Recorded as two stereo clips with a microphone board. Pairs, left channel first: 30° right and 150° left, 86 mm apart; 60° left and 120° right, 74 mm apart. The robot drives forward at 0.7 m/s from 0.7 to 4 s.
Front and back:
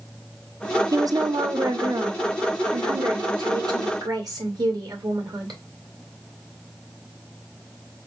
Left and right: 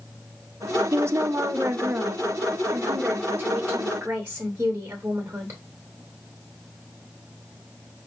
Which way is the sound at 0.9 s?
170° right.